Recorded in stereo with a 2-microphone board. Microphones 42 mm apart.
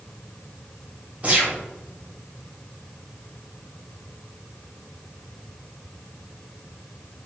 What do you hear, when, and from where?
1.2 s a gunshot: 30° right (ahead or behind), 1.6 m